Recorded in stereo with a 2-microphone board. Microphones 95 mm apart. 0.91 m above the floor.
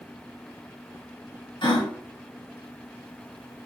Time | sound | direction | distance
1.6 | a gasp | 60° left (ahead or behind) | 1.6 m